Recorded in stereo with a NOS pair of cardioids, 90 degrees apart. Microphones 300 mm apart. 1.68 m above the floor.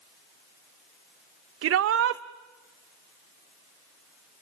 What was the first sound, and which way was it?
A shout, 50° right.